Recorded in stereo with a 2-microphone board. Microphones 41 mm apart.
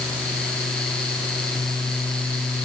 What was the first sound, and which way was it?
Only background noise.